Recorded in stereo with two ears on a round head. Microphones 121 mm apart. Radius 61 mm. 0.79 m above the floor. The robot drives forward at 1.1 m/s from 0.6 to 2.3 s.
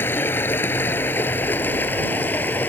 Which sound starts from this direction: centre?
Running water, at 0.0 s.